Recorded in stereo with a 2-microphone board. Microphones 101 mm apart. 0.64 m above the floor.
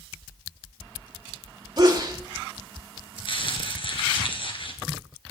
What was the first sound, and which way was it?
A sneeze, 45° right (ahead or behind).